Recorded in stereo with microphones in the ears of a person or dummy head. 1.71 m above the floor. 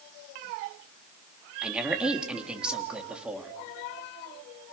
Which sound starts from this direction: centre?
A woman speaking, at 1.6 s.